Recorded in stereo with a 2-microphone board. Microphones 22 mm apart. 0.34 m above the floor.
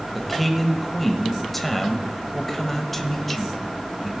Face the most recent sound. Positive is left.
turn(degrees=5)  # may be behind; listen again after turning